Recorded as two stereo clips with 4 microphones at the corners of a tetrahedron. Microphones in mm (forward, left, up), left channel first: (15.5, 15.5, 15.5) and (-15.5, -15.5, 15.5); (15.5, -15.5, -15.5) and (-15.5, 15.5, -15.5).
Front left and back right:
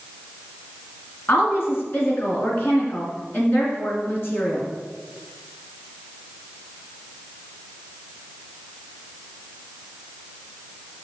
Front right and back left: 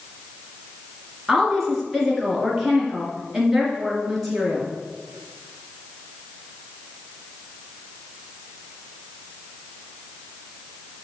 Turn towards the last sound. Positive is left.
turn(degrees=50)